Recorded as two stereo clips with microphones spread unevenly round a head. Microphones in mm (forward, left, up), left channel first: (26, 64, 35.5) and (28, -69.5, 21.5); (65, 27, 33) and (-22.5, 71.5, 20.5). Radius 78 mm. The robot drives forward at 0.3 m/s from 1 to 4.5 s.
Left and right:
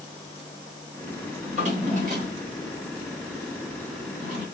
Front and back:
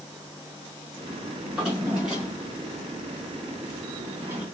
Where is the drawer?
115° right, 1.9 m; by 4.5 s 140° right, 2.5 m.